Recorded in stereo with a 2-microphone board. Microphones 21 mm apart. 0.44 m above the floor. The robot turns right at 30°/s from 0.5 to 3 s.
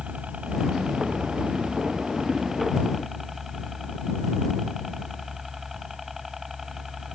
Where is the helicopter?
95° right; by 7.1 s 20° right.